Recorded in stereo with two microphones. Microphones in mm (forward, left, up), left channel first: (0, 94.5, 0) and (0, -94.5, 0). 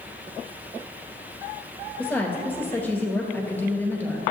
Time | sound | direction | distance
2.0 | a woman speaking | 10° left (ahead or behind) | 1.7 m